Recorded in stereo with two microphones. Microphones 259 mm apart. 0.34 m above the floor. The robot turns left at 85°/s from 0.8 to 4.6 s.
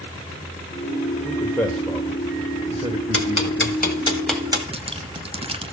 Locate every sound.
1.2 s a man speaking: 15° left (ahead or behind), 1.5 m; by 4.1 s 10° left (ahead or behind), 1.5 m
3.1 s ticking: 55° left (ahead or behind), 2.0 m; by 4.6 s 20° right (ahead or behind), 2.0 m
4.7 s dripping: 20° right (ahead or behind), 0.7 m